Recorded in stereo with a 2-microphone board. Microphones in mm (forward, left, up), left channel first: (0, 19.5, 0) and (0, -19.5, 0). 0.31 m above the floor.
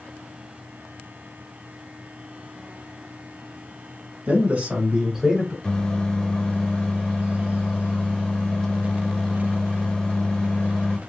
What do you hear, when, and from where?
4.3 s a man speaking: 45° right (ahead or behind), 1.6 m; by 5.5 s centre (ahead or behind), 1.4 m
5.6 s a microwave: 20° left (ahead or behind), 0.7 m